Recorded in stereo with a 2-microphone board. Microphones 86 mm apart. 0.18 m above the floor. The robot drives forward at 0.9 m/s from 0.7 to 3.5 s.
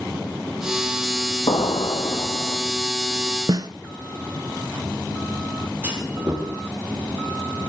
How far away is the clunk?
About 5 m.